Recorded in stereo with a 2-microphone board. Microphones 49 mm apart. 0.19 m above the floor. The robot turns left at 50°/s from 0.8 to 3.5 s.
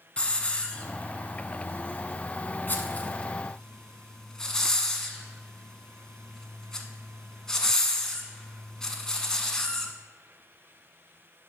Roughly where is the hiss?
Left.